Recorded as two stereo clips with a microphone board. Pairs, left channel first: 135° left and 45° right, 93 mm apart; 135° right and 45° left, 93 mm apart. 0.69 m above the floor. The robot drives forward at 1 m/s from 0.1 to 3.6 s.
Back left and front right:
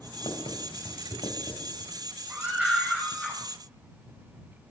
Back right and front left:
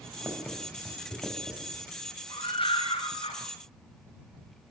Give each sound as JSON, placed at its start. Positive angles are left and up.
{"t": 0.2, "sound": "writing", "azimuth_deg": 115, "distance_m": 4.5}
{"t": 2.3, "sound": "a scream", "azimuth_deg": -115, "distance_m": 3.5}